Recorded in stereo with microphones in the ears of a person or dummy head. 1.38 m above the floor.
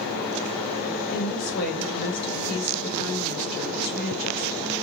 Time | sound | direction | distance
1.1 | a woman speaking | 50° left (ahead or behind) | 1.5 m